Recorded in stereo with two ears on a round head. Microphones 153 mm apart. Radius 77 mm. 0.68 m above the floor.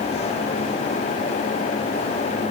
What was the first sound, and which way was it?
Only background noise.